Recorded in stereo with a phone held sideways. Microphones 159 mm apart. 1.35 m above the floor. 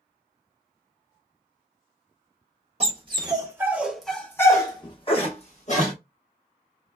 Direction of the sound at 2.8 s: 40° right (ahead or behind).